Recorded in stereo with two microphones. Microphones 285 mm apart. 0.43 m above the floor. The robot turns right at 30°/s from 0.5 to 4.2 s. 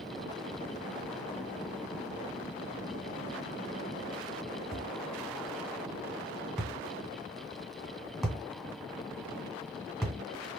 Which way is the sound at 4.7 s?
Centre (ahead or behind).